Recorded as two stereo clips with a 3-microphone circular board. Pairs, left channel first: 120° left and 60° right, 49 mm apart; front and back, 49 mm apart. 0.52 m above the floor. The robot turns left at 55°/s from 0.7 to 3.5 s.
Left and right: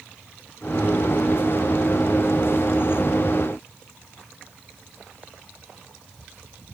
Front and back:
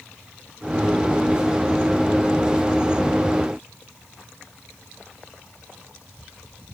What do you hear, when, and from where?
Only background noise.